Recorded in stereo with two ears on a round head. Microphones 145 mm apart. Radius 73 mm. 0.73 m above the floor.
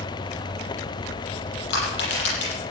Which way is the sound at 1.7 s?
75° left (ahead or behind).